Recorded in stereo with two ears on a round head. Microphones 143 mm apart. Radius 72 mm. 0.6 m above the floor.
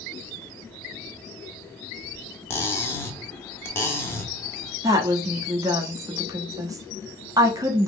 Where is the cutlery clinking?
15° left (ahead or behind), 0.8 m.